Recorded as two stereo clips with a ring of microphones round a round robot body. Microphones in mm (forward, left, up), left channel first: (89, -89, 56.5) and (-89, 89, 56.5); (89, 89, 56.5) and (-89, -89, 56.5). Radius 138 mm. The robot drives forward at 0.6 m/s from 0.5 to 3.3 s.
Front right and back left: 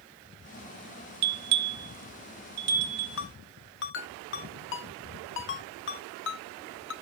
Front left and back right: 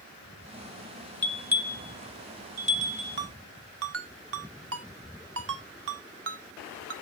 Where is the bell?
130° left, 0.5 m; by 3.2 s 165° left, 1.6 m.